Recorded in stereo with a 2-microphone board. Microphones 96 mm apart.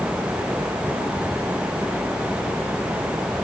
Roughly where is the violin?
I don't hear a violin.